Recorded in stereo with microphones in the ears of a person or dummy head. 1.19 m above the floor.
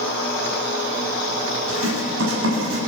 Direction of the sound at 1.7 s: 80° right.